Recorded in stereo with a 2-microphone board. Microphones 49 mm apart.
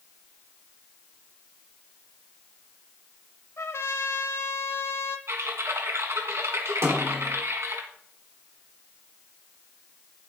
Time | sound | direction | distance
3.6 | a trumpet | 65° left (ahead or behind) | 0.9 m
5.3 | typing on a keyboard | 75° right (ahead or behind) | 1.9 m
6.8 | a snare drum | 65° right (ahead or behind) | 3 m